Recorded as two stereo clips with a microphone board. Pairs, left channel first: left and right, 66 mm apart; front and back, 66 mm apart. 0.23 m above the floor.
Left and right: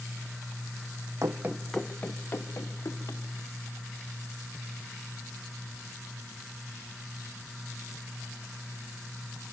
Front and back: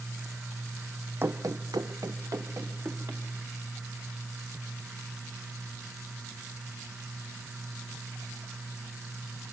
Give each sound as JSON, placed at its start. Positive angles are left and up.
{"t": 1.2, "sound": "running footsteps", "azimuth_deg": -125, "distance_m": 0.7}